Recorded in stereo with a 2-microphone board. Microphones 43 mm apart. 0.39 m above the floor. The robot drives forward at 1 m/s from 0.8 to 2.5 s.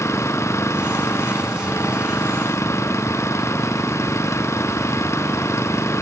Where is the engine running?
80° left.